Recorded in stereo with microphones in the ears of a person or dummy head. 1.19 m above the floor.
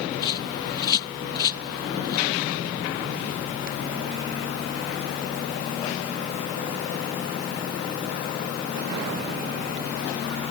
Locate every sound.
0.2 s a bird: 30° left (ahead or behind)